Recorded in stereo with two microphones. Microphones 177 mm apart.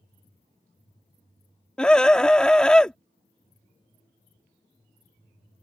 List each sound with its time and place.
1.8 s a scream: 5° left (ahead or behind)